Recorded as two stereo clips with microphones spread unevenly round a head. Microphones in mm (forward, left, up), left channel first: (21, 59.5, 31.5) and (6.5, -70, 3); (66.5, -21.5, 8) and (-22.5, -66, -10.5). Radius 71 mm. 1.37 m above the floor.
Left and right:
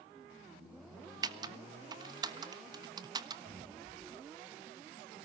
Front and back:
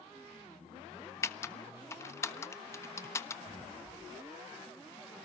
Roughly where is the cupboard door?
Behind right.